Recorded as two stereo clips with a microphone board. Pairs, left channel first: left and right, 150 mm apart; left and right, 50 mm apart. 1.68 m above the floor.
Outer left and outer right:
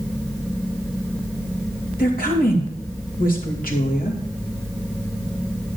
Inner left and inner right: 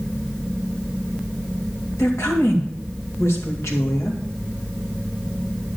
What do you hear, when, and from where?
2.0 s a woman speaking: 80° left, 3 m